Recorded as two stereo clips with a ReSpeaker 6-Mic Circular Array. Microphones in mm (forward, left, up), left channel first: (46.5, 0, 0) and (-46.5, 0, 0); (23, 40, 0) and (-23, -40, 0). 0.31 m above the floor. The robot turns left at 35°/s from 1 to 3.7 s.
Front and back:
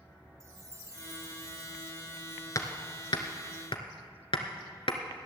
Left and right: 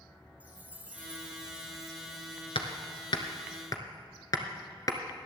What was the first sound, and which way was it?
A chime, 175° right.